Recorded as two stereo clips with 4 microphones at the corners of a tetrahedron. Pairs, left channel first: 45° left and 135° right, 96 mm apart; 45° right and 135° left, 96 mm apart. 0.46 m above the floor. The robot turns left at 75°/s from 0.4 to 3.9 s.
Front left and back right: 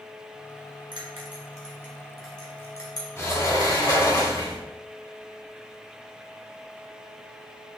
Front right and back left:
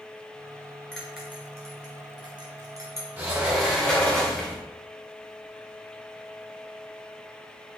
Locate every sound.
0.9 s a bell: 130° right, 2 m; by 3.1 s 70° left, 2 m
3.2 s a sliding door: 75° left, 1.6 m; by 4.6 s 20° left, 1.6 m